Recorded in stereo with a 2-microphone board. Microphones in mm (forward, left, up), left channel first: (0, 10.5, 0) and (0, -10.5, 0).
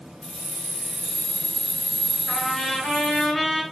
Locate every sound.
0.2 s keys jangling: 70° left (ahead or behind), 1.9 m; by 3.3 s 20° left (ahead or behind), 2.5 m
2.3 s a trumpet: 30° left (ahead or behind), 5 m